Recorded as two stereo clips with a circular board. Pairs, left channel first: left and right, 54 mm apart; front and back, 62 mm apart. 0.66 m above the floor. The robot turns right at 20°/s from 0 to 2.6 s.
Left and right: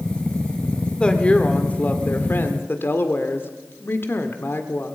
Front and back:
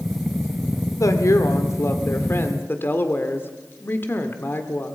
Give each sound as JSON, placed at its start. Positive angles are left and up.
{"t": 1.0, "sound": "a woman speaking", "azimuth_deg": 20, "distance_m": 1.9}